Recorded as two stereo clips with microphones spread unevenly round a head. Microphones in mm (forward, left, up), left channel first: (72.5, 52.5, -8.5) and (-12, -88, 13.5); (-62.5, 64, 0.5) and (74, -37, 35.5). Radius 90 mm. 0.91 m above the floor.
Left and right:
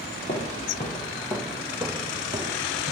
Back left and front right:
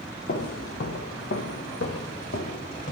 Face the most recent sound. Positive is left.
turn(degrees=-170)